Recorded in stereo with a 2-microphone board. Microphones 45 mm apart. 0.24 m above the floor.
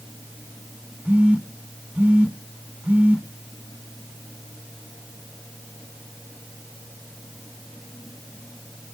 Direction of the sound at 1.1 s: 30° right (ahead or behind).